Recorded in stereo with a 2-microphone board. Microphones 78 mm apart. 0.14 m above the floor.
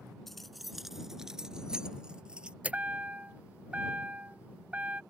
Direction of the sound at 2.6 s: 20° right (ahead or behind).